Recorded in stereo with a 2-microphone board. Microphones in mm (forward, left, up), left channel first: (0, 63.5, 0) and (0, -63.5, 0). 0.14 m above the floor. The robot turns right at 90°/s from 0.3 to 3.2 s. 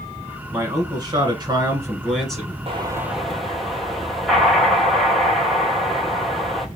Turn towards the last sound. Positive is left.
turn(degrees=0)